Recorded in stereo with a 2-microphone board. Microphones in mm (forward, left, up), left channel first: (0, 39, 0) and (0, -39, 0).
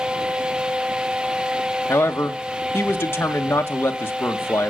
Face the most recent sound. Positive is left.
turn(degrees=30)  # may be behind; listen again after turning